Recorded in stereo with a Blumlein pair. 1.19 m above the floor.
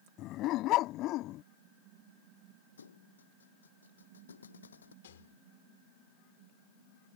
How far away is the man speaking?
I don't hear a man speaking.